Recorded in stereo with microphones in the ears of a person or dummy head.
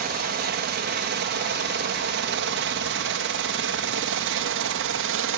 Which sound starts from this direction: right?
A helicopter, at 0.0 s.